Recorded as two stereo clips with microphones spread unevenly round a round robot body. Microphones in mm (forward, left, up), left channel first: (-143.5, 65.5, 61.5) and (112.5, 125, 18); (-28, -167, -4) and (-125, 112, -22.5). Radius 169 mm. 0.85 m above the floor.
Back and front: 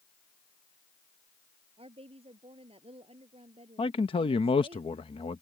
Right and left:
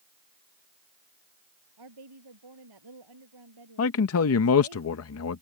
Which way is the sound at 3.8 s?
90° right.